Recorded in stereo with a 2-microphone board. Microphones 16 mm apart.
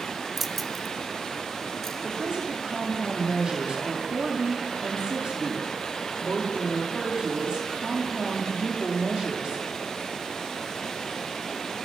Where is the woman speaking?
75° right (ahead or behind), 7 m.